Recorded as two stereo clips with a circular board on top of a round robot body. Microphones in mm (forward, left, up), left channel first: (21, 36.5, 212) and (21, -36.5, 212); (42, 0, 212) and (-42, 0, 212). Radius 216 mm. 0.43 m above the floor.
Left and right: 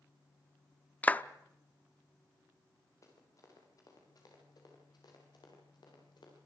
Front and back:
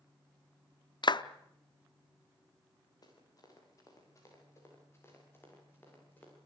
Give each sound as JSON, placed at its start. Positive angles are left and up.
{"t": 1.0, "sound": "a clap", "azimuth_deg": 20, "distance_m": 0.9}
{"t": 3.0, "sound": "running footsteps", "azimuth_deg": 40, "distance_m": 6.5}